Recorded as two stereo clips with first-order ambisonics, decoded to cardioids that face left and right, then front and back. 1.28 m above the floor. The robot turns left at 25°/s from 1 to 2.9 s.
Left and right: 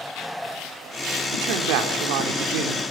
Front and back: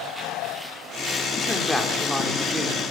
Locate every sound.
1.3 s a man speaking: 70° right, 3 m; by 2.8 s 110° right, 3 m